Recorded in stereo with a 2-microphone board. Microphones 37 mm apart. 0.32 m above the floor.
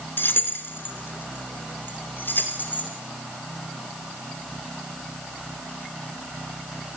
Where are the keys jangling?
70° left (ahead or behind), 3 m; by 2.9 s 55° left (ahead or behind), 6 m.